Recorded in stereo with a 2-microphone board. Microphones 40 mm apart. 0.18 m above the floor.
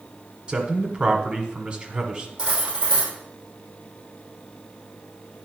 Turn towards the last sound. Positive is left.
turn(degrees=-20)  # may be behind; listen again after turning